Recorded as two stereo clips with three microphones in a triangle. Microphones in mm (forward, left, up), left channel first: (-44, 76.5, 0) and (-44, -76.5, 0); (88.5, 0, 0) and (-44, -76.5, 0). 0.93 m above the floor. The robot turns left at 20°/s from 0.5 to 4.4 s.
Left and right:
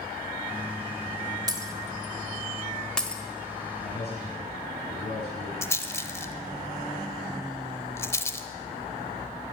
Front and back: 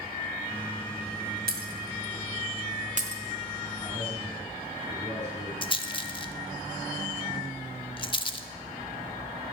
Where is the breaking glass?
155° right, 1.3 m; by 3.2 s 170° left, 1.3 m.